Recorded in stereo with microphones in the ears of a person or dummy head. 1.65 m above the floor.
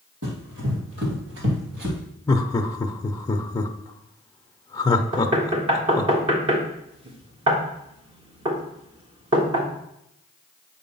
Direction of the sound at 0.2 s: 60° right (ahead or behind).